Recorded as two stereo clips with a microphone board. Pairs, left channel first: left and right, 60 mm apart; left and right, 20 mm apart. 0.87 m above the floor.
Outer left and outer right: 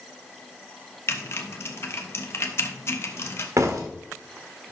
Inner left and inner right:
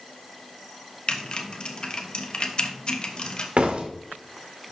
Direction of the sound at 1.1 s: 50° left (ahead or behind).